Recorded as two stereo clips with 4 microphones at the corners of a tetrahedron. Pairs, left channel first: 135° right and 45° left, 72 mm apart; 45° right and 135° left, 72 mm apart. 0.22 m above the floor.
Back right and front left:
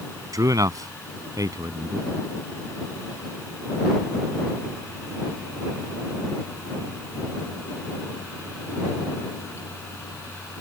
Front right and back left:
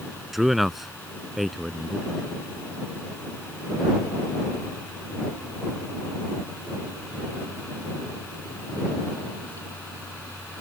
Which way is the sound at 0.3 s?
45° left.